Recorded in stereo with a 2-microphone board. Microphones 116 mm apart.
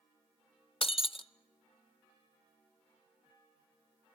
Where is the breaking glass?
50° left (ahead or behind), 0.6 m.